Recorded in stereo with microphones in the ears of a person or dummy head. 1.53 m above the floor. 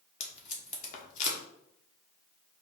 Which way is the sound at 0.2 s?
45° left (ahead or behind).